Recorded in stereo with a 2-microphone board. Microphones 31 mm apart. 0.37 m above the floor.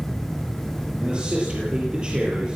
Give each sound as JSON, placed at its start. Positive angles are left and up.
{"t": 1.0, "sound": "a man speaking", "side_deg": -30, "distance_m": 7.0}